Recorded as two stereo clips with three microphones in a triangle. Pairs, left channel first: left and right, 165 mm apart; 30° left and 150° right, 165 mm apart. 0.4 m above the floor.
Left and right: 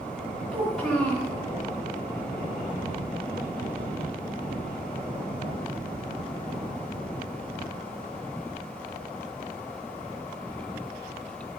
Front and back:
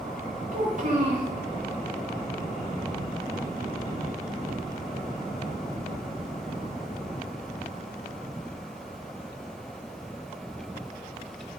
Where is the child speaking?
Straight behind, 1.9 m.